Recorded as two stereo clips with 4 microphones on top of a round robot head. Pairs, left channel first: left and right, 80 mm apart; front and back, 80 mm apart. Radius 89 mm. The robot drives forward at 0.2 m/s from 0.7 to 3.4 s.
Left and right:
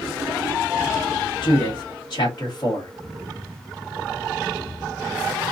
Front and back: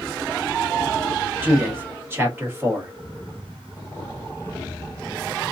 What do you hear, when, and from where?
1.4 s a man speaking: 115° left, 1.5 m; by 2.9 s 125° left, 1.6 m